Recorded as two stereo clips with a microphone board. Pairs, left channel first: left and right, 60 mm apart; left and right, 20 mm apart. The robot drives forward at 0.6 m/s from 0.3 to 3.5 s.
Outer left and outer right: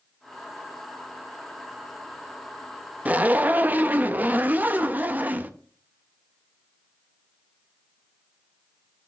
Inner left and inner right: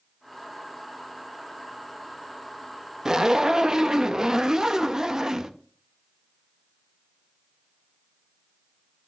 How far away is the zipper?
About 0.6 m.